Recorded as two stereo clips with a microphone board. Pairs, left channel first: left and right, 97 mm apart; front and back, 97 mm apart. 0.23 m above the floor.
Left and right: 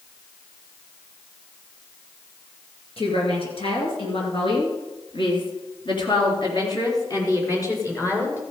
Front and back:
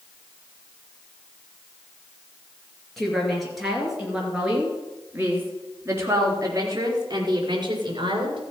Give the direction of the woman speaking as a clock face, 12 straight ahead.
9 o'clock.